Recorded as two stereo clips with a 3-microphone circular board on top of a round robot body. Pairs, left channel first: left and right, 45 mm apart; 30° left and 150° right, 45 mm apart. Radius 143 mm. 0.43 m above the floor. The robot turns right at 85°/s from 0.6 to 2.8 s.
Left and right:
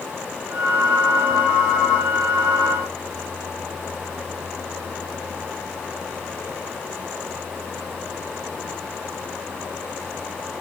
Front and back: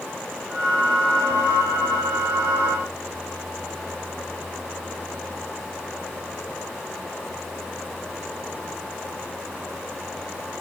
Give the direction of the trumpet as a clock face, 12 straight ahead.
No trumpet in this recording.